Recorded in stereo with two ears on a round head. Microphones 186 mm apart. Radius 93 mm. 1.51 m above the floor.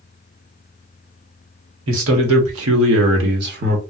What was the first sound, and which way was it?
A man speaking, 70° right (ahead or behind).